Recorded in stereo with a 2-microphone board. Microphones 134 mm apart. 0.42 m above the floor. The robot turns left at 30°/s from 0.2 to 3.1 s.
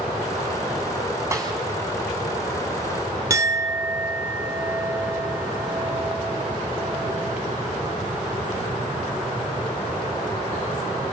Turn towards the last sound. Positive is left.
turn(degrees=-20)  # may be behind; listen again after turning